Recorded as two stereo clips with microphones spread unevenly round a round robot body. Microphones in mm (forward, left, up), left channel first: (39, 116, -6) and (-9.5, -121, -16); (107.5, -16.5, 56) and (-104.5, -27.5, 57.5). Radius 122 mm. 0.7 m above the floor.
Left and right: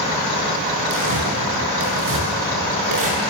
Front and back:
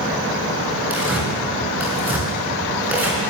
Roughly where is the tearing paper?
Right.